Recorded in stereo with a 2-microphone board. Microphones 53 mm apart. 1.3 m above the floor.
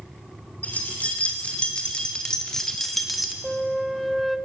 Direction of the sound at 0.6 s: 25° left (ahead or behind).